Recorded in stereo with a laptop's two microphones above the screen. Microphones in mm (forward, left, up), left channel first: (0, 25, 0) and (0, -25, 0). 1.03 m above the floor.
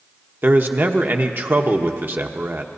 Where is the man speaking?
45° right (ahead or behind), 1.0 m.